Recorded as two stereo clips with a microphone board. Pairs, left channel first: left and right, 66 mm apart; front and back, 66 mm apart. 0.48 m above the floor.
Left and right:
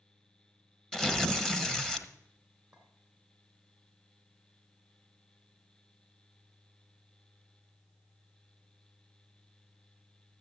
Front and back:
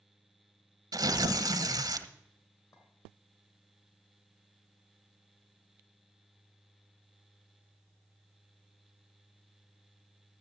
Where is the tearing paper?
170° left, 0.9 m.